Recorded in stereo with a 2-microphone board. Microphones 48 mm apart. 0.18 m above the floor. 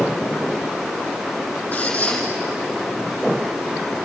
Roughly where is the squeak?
Left.